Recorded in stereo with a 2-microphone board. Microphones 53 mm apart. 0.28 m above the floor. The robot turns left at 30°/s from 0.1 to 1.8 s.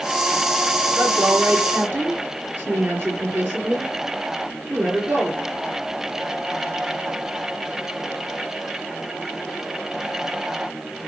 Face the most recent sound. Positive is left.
turn(degrees=-45)  # may be behind; listen again after turning